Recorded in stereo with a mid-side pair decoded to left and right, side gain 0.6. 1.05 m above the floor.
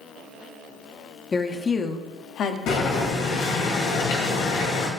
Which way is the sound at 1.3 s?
20° left.